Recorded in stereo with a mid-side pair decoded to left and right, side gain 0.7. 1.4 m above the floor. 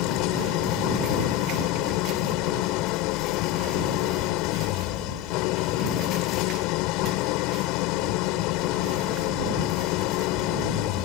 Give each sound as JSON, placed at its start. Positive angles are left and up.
{"t": 0.0, "sound": "an engine running", "azimuth_deg": 65}